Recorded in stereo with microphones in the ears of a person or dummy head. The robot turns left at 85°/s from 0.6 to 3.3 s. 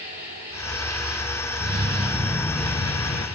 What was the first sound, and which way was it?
An insect, 10° right.